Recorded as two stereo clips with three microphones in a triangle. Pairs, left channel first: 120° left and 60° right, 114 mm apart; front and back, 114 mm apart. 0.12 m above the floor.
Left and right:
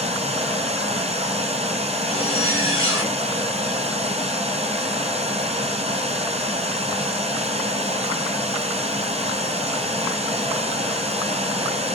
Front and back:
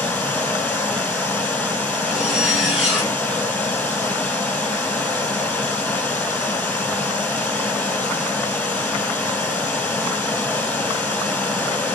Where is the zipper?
95° left, 2 m.